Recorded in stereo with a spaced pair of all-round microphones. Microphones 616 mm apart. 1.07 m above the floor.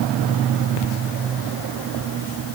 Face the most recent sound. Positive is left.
No sound to turn to.